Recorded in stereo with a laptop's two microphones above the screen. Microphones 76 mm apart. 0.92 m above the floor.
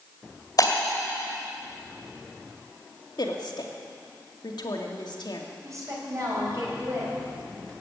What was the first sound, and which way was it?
Breaking glass, 50° left (ahead or behind).